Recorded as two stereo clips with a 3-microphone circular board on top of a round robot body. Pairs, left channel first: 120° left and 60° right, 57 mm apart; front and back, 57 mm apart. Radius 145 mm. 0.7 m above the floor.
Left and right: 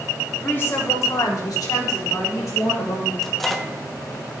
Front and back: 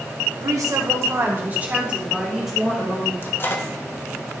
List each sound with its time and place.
0.4 s a woman speaking: 175° left, 1.8 m; by 3.1 s 90° left, 3.5 m
3.2 s a microwave: 35° left, 1.2 m